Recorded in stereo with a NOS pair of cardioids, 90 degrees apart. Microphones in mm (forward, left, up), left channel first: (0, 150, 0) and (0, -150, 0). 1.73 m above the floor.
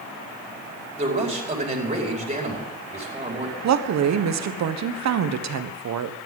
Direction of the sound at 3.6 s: 60° right.